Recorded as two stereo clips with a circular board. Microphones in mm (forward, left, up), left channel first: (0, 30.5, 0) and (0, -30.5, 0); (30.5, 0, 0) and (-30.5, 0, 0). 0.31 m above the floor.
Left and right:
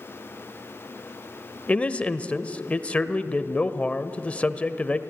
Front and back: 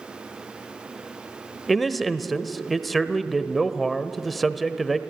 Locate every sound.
1.7 s a man speaking: 85° left, 0.9 m